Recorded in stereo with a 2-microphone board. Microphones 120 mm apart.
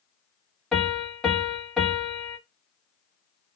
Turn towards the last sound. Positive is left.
turn(degrees=5)  # may be behind; listen again after turning